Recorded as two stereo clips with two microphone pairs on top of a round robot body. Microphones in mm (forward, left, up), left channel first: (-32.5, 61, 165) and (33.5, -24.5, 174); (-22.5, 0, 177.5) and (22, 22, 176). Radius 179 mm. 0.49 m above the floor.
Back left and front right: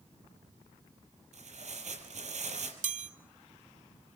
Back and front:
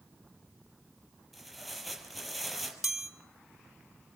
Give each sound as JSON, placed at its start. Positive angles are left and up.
{"t": 1.3, "sound": "tearing paper", "azimuth_deg": -65, "distance_m": 5.5}
{"t": 2.8, "sound": "a chime", "azimuth_deg": -55, "distance_m": 1.2}